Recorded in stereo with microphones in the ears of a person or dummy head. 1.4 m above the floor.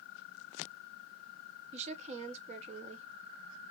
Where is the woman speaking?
40° right (ahead or behind), 1.0 m.